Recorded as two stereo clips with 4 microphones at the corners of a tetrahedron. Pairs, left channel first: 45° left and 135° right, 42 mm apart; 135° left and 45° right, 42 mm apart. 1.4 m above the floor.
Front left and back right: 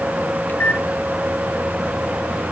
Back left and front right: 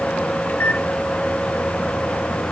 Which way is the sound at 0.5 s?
90° left.